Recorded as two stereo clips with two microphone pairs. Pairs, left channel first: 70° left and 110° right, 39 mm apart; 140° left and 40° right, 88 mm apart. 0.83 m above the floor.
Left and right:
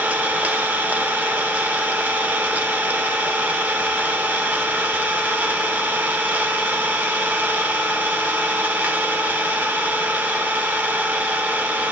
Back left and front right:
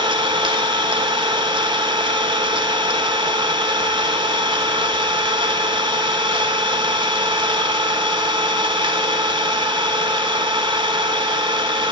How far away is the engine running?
About 1.2 m.